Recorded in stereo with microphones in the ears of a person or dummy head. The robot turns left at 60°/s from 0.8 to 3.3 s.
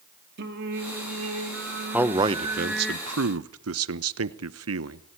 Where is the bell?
No bell in this recording.